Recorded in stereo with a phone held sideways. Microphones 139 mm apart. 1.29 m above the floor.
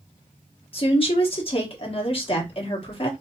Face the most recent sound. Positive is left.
turn(degrees=40)  # may be behind; listen again after turning